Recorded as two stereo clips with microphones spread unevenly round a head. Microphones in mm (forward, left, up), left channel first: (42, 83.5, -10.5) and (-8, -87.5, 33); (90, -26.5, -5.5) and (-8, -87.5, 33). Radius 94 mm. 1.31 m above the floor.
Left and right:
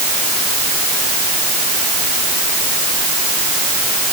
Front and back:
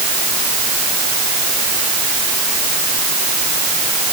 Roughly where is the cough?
I don't hear a cough.